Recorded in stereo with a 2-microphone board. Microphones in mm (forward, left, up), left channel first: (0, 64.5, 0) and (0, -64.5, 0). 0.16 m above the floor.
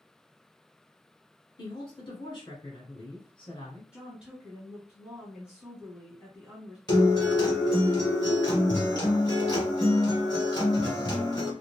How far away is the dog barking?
No dog barking in this recording.